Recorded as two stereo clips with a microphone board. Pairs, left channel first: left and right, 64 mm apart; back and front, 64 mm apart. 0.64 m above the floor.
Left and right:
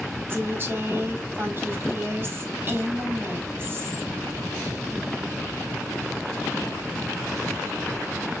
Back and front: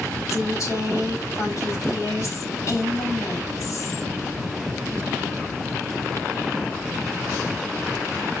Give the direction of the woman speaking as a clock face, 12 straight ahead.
5 o'clock.